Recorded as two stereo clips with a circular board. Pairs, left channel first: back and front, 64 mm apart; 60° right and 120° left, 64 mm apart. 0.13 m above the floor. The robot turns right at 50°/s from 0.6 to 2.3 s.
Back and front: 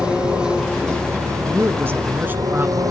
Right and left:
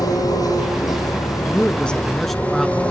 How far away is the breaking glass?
No breaking glass in this recording.